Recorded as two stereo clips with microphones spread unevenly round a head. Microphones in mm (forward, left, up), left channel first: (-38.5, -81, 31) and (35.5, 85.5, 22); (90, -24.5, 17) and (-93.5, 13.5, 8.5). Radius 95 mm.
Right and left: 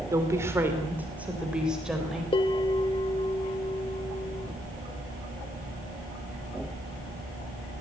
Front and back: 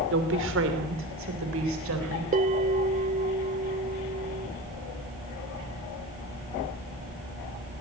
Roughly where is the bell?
Behind.